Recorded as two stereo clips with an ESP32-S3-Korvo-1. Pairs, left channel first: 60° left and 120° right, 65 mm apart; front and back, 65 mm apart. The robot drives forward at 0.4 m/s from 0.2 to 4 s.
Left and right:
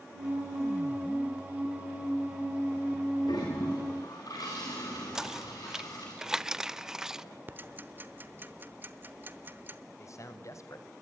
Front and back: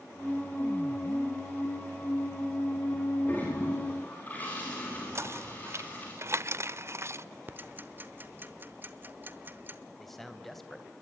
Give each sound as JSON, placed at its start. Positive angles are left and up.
{"t": 3.3, "sound": "a toilet flushing", "azimuth_deg": 60, "distance_m": 8.0}
{"t": 5.2, "sound": "knocking", "azimuth_deg": 160, "distance_m": 0.6}
{"t": 7.5, "sound": "ticking", "azimuth_deg": -150, "distance_m": 1.0}
{"t": 10.0, "sound": "a man speaking", "azimuth_deg": 85, "distance_m": 2.5}